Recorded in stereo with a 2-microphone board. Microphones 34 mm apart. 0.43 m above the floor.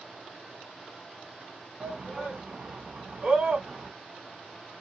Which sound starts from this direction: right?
A shout, at 1.8 s.